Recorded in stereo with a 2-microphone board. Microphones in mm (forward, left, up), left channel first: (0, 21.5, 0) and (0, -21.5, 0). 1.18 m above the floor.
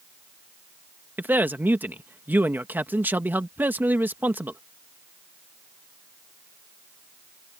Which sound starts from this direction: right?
A man speaking, at 1.2 s.